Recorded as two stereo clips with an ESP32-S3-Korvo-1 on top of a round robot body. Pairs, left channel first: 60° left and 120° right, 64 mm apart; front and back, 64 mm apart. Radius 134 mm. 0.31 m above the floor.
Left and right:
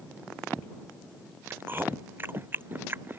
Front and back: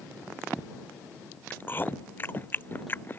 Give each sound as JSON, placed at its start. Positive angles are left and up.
{"t": 1.5, "sound": "chewing", "azimuth_deg": -60}